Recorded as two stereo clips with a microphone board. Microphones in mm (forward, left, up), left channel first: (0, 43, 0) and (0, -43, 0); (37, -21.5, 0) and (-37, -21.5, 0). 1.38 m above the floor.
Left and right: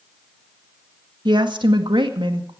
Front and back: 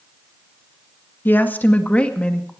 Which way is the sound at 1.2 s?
65° right.